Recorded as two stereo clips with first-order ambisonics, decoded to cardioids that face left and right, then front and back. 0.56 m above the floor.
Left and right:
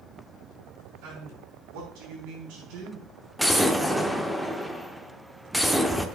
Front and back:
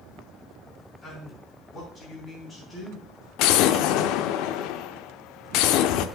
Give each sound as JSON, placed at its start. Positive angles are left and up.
{"t": 1.0, "sound": "a man speaking", "azimuth_deg": -75, "distance_m": 5.0}
{"t": 3.4, "sound": "an explosion", "azimuth_deg": 5, "distance_m": 0.6}